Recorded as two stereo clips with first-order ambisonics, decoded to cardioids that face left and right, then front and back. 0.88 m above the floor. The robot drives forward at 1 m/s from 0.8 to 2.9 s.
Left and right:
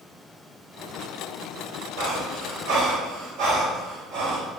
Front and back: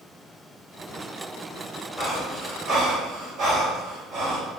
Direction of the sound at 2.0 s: 90° right.